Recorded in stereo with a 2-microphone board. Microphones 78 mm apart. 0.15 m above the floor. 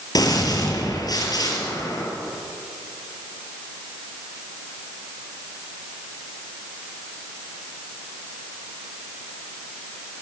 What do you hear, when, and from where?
0.1 s a gunshot: 55° left (ahead or behind), 3 m